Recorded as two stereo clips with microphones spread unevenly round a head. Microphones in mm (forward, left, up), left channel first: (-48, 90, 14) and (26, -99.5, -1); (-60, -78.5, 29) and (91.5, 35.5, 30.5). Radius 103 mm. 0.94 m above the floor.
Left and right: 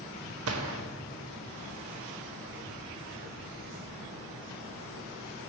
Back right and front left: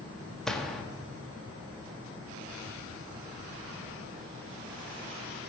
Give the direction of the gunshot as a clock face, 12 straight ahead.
2 o'clock.